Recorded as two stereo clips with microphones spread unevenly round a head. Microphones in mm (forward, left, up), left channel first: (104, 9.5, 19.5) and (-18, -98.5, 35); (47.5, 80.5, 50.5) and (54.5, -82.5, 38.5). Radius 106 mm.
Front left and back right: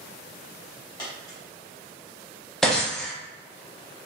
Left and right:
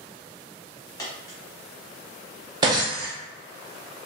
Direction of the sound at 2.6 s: 55° right.